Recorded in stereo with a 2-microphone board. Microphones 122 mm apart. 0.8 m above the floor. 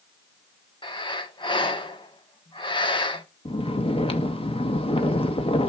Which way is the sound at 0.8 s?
40° left (ahead or behind).